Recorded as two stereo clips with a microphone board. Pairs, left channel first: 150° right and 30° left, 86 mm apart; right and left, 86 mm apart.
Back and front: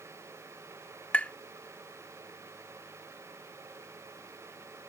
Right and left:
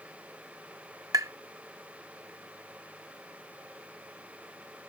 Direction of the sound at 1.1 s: 135° left.